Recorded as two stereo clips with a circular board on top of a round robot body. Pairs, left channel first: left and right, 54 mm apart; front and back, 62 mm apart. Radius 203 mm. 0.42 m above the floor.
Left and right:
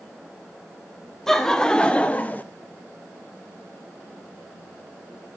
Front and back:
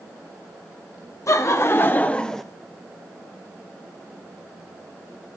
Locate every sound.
1.3 s laughter: 10° left, 1.2 m; by 2.4 s 85° left, 0.9 m